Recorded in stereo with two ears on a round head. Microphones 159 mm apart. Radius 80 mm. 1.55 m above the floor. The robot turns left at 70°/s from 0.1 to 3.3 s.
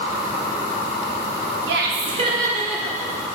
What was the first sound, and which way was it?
Laughter, 105° right.